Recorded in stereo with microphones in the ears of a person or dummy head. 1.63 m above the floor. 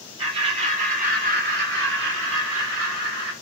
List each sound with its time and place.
0.2 s laughter: 30° right (ahead or behind), 1.8 m; by 3.3 s 85° right, 2 m